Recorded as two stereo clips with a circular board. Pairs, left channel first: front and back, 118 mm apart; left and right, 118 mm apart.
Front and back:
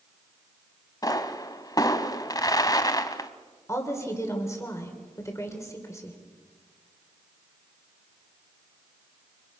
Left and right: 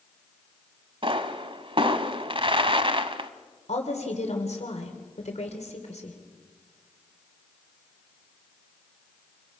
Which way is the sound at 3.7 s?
65° left.